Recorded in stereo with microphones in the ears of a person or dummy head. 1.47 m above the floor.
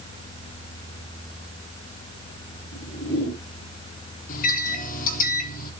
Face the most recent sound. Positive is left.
turn(degrees=45)  # may be behind; listen again after turning